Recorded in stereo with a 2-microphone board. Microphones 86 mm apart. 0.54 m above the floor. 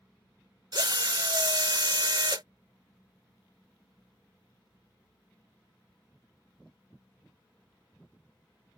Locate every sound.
0.7 s a drill: 60° right (ahead or behind)